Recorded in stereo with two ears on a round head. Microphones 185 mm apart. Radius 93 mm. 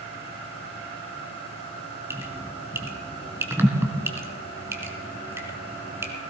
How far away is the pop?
I don't hear a pop.